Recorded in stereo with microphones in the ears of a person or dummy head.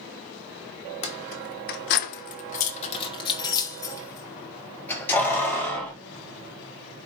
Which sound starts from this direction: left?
Keys jangling, at 1.0 s.